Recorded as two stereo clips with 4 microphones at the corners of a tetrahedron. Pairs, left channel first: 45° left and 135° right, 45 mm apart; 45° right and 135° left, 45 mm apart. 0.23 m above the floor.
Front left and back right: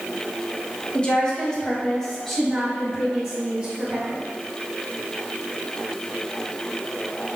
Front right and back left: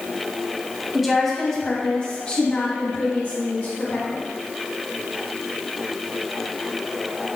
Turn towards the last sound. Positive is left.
turn(degrees=-60)